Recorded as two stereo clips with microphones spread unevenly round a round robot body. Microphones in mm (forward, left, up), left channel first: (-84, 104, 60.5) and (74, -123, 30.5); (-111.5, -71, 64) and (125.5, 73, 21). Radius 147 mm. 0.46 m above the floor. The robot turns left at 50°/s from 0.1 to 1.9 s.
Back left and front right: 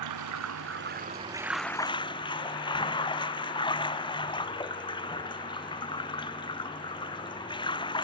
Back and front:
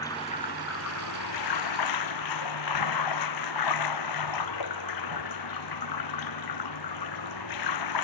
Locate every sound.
0.0 s running water: 70° right; by 8.0 s 160° right